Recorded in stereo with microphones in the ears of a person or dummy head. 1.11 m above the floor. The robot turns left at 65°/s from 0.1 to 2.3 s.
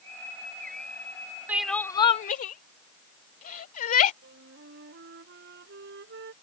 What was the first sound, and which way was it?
Crying, 10° right (ahead or behind).